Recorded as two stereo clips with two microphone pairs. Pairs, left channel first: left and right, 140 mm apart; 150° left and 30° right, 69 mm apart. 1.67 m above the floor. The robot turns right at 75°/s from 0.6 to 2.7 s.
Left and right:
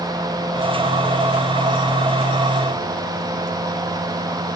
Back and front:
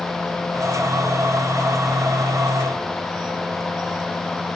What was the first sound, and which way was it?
Only background noise.